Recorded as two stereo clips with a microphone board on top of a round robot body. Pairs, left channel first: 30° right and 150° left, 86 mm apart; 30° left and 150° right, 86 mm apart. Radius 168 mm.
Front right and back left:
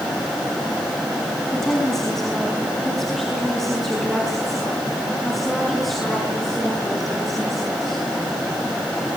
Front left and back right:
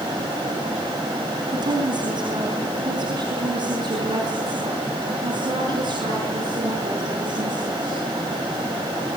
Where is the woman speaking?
115° right, 4.5 m; by 8.0 s 120° right, 9.5 m.